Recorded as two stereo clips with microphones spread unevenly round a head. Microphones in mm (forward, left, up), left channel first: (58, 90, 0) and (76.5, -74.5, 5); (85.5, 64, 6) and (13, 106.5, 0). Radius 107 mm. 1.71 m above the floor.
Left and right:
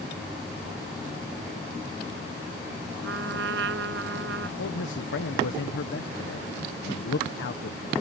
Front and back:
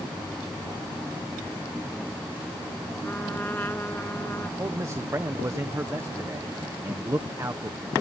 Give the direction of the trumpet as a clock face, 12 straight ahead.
4 o'clock.